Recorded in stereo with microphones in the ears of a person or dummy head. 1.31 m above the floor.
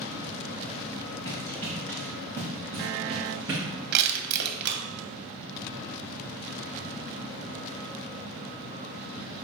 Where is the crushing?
60° right (ahead or behind), 0.9 m.